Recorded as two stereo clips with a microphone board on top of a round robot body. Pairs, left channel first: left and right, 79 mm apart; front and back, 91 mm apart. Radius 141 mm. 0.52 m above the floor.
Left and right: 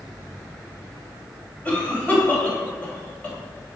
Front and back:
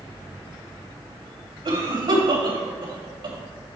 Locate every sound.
1.6 s a cough: 160° left, 3 m